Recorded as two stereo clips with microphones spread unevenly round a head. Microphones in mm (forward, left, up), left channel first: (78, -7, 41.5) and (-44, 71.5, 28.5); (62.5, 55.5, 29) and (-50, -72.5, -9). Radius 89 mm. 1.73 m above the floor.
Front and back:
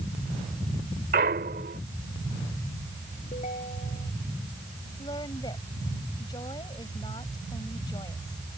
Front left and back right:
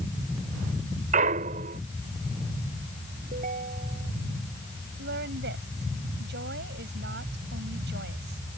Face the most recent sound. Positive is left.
turn(degrees=-100)